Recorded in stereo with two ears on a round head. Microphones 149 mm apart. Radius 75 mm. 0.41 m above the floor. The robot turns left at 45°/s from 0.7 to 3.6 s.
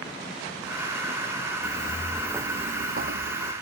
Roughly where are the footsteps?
Left.